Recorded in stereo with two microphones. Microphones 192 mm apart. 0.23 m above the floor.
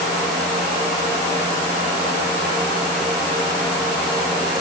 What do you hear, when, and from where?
Only background noise.